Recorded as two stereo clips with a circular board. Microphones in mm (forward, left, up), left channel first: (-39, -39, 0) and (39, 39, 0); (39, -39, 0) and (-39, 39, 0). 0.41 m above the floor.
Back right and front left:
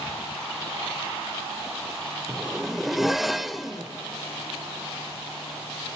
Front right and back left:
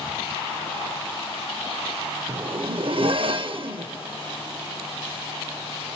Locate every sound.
2.3 s a zipper: 135° left, 0.5 m